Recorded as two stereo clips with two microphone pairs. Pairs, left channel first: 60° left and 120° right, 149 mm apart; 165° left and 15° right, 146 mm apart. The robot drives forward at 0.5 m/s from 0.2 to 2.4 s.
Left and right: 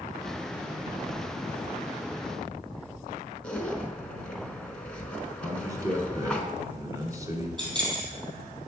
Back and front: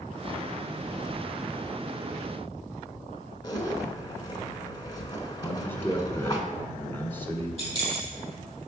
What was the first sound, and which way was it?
A zipper, 135° left.